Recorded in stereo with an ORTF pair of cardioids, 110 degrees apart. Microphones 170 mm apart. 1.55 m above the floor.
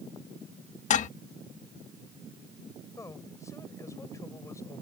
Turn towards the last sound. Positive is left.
turn(degrees=20)